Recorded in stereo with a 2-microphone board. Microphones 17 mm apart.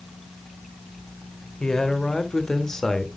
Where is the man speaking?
40° left (ahead or behind), 1.8 m; by 3.1 s 25° left (ahead or behind), 1.3 m.